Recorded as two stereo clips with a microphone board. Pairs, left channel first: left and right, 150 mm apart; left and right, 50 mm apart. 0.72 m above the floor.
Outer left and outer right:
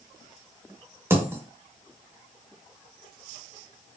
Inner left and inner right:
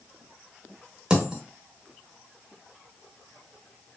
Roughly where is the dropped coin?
Centre.